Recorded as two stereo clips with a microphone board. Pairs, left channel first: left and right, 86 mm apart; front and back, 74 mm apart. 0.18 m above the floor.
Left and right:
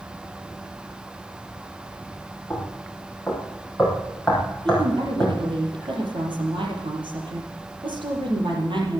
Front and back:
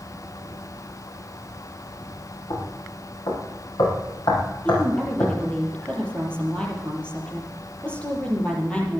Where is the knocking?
5° left, 5 m.